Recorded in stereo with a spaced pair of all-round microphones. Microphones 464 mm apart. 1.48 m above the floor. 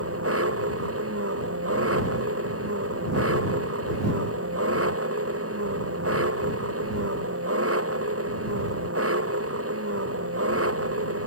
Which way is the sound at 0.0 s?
30° right (ahead or behind).